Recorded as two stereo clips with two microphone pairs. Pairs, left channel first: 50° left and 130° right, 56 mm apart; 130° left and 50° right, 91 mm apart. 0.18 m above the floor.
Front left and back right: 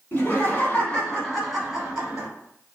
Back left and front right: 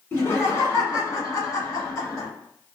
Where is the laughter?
75° left, 1.4 m; by 2.3 s 165° left, 1.5 m.